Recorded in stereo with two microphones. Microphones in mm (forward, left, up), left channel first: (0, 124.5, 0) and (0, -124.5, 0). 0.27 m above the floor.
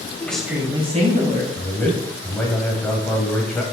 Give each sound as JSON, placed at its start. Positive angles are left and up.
{"t": 0.2, "sound": "a woman speaking", "side_deg": 10, "distance_m": 1.5}
{"t": 1.6, "sound": "a man speaking", "side_deg": 5, "distance_m": 1.3}